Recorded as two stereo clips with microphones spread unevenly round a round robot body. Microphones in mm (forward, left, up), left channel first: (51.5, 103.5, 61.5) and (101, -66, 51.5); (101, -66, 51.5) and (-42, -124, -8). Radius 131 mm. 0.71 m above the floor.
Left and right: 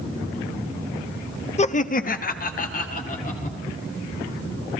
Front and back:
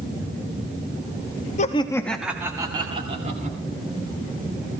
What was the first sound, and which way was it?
Laughter, 75° left.